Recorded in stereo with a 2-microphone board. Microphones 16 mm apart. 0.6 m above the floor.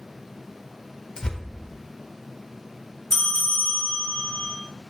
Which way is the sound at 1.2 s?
55° left (ahead or behind).